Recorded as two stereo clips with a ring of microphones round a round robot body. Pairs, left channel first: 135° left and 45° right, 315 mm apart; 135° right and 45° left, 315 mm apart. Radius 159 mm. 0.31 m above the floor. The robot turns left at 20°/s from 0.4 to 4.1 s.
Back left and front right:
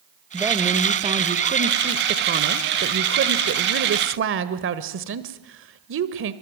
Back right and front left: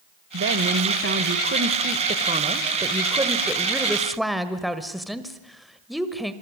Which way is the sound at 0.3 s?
30° left.